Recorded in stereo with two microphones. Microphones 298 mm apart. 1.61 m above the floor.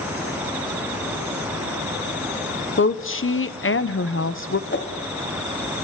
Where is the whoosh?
40° left (ahead or behind), 1.4 m.